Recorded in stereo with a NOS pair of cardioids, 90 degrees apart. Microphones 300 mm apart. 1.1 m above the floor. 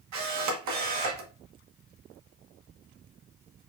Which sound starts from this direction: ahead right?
A camera shutter, at 0.1 s.